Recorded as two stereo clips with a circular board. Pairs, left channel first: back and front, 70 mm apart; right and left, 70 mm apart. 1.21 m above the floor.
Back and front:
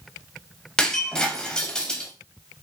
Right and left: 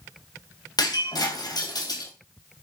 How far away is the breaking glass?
About 3 m.